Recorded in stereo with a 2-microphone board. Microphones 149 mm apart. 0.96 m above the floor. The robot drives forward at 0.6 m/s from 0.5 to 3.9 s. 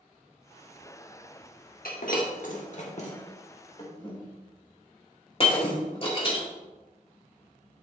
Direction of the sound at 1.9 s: 75° left (ahead or behind).